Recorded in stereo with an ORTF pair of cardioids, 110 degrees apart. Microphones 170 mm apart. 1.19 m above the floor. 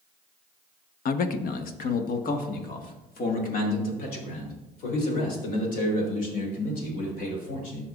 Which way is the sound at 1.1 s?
60° left.